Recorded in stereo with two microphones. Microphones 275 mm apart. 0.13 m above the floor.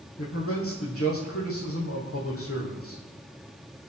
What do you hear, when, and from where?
0.2 s a man speaking: 55° left (ahead or behind), 4.5 m